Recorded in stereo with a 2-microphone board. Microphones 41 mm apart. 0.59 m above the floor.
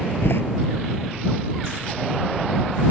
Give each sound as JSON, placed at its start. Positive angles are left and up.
{"t": 0.2, "sound": "a door slam", "side_deg": 65}